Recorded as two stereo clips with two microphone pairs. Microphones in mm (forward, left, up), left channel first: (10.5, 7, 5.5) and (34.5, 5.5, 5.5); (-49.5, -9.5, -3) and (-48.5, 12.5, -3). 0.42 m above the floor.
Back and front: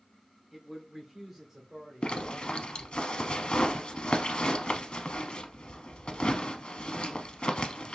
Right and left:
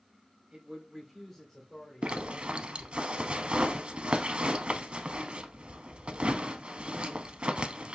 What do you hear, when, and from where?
0.5 s a man speaking: 90° left, 1.5 m; by 3.0 s 70° right, 3 m
2.0 s a zipper: 130° left, 0.6 m